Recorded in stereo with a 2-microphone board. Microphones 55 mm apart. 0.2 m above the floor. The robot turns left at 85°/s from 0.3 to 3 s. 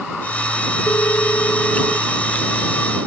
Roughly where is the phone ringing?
Left.